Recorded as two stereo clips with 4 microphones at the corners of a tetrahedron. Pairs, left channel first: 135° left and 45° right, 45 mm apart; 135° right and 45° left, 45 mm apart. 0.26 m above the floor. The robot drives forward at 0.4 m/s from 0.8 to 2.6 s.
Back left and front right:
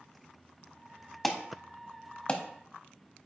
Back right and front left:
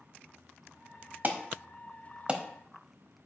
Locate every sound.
1.2 s an alarm: 50° left, 0.9 m; by 2.4 s 95° left, 0.8 m